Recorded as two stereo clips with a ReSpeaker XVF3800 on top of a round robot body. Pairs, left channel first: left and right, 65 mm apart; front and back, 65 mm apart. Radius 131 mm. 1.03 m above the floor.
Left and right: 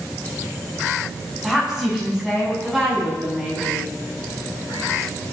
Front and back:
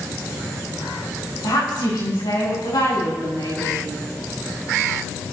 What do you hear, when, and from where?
1.4 s a woman speaking: 5° right, 10 m; by 3.9 s 10° right, 11 m